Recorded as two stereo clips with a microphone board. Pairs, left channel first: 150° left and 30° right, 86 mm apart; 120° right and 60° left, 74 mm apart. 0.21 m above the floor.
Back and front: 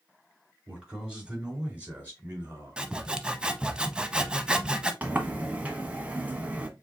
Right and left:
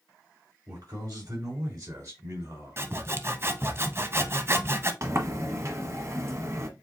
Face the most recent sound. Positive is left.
turn(degrees=35)